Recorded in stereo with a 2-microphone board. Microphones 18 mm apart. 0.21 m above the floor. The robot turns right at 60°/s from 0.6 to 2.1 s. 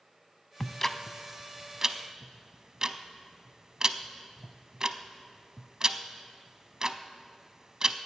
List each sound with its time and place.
0.6 s ticking: 20° left (ahead or behind), 0.5 m; by 8.0 s 40° right (ahead or behind), 0.5 m